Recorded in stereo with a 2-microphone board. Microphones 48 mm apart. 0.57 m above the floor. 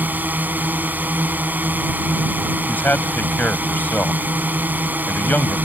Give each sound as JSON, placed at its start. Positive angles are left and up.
{"t": 0.0, "sound": "a drone", "side_deg": -45}
{"t": 2.7, "sound": "a man speaking", "side_deg": 40}